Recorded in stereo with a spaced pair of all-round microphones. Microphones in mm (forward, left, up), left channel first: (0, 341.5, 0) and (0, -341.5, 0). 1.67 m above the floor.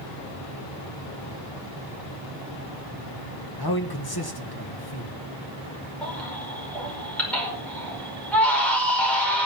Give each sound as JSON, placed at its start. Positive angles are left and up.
{"t": 3.6, "sound": "a man speaking", "side_deg": 35, "distance_m": 1.8}
{"t": 6.0, "sound": "a baby crying", "side_deg": 0, "distance_m": 5.5}